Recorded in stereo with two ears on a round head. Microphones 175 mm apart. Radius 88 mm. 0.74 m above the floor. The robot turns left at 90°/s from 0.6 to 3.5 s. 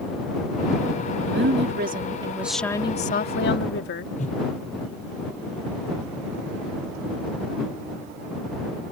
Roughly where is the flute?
I don't hear a flute.